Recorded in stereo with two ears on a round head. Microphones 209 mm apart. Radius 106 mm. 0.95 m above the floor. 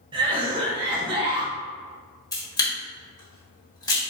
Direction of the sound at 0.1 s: 20° right (ahead or behind).